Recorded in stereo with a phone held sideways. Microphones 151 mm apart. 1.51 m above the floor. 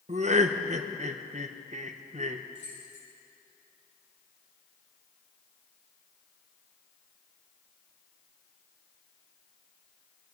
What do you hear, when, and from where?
0.1 s laughter: 50° right (ahead or behind), 0.9 m
2.5 s keys jangling: 55° left (ahead or behind), 6 m